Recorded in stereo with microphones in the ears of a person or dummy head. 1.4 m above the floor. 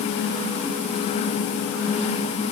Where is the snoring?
No snoring in this recording.